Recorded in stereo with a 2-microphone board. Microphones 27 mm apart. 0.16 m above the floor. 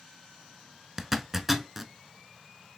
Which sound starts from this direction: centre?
A zipper, at 1.0 s.